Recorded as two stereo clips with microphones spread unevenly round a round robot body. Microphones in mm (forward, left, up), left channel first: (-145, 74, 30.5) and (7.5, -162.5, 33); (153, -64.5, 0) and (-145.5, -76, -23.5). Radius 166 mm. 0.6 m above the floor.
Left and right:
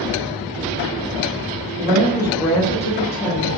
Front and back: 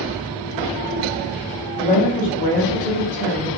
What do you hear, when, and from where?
1.8 s a woman speaking: 40° right, 0.8 m; by 3.5 s 70° left, 1.1 m